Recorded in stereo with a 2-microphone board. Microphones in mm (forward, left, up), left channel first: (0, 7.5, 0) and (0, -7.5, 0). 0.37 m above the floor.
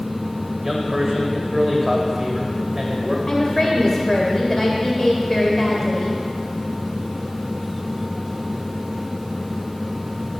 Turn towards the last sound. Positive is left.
turn(degrees=15)  # may be behind; listen again after turning